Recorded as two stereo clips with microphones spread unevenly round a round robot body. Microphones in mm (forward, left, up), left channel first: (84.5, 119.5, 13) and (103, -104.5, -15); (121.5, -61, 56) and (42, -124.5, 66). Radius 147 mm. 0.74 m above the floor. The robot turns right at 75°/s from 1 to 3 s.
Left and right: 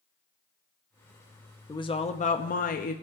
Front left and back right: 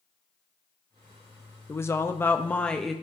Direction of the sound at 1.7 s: 25° left.